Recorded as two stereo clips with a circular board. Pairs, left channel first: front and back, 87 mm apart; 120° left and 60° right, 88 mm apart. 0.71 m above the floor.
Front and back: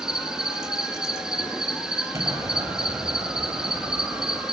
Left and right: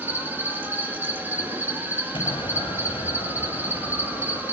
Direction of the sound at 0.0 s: 105° right.